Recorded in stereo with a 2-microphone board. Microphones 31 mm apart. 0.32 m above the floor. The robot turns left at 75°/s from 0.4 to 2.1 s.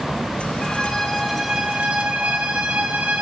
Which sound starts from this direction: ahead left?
A violin, at 0.6 s.